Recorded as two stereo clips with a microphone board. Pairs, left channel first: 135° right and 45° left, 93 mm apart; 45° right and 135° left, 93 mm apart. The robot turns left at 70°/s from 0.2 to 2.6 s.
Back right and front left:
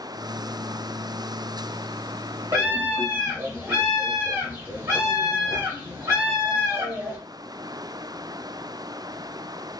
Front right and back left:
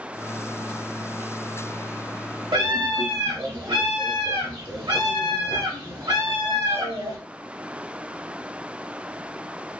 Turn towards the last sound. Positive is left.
turn(degrees=105)